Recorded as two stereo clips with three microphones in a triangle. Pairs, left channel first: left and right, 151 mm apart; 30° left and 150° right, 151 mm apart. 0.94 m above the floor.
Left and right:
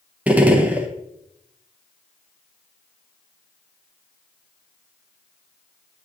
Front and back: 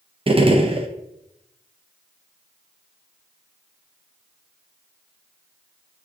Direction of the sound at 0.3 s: 165° right.